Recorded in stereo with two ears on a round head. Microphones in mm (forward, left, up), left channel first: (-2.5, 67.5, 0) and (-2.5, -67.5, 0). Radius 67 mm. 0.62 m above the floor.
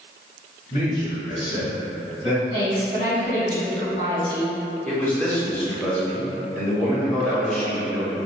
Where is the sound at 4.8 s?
10° left (ahead or behind), 1.3 m.